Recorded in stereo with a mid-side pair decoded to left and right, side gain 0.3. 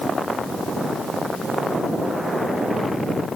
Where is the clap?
I don't hear a clap.